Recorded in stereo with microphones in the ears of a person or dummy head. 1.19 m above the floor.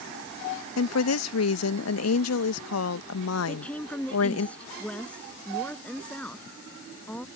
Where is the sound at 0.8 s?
80° left.